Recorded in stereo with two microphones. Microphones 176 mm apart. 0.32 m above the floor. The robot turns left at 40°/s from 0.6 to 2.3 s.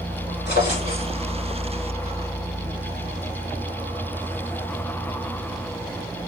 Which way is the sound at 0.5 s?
75° left (ahead or behind).